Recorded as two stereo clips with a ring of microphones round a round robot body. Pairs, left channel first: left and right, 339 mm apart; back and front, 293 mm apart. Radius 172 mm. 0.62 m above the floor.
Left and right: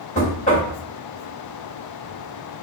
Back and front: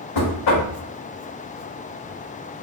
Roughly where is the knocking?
Behind.